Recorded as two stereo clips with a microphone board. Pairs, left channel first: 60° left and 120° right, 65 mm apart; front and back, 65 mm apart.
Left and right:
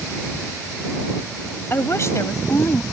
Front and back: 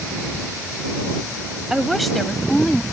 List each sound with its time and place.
1.7 s a woman speaking: 100° left; by 2.8 s 75° left